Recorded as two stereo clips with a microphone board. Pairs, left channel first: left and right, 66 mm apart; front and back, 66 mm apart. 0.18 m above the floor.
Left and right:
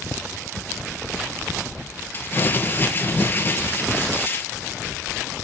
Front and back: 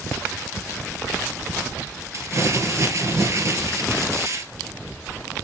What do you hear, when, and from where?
2.1 s crumpling: 145° left, 2.5 m